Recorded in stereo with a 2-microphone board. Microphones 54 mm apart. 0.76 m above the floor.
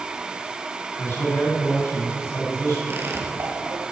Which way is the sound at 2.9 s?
50° right (ahead or behind).